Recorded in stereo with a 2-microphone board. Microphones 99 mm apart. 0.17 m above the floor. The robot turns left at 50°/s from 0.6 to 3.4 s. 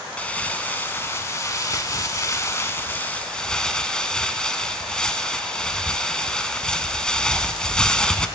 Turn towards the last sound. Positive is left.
turn(degrees=15)